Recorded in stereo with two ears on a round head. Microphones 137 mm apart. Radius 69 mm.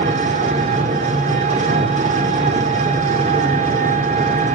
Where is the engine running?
45° right (ahead or behind), 3 m.